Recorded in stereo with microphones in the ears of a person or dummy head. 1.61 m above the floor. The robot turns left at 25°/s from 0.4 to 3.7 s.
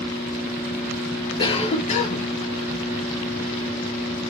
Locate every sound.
1.4 s a cough: 25° left (ahead or behind), 0.8 m; by 2.3 s 45° left (ahead or behind), 0.8 m